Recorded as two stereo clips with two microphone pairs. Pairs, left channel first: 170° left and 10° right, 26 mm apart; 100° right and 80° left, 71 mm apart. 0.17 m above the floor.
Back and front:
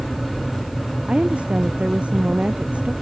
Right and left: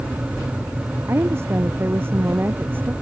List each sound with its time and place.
1.1 s a woman speaking: 30° left; by 2.9 s 20° left